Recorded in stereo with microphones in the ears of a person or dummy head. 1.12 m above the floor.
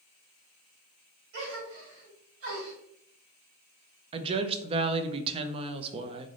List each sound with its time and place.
1.3 s a gasp: 75° right (ahead or behind), 1.9 m
4.1 s a woman speaking: 30° right (ahead or behind), 0.5 m